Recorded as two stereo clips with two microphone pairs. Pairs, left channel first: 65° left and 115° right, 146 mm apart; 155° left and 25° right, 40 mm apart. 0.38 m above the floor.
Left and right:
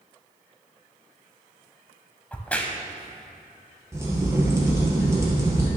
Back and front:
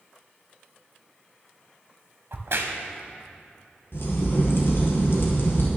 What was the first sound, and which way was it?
A crack, 10° right.